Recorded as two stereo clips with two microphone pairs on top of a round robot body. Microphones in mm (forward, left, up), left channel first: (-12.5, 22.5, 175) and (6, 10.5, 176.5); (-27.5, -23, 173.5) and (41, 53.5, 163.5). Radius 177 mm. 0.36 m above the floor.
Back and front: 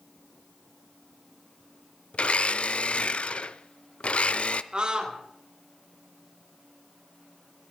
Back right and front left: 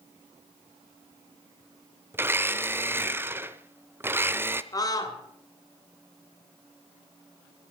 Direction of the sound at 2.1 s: 115° left.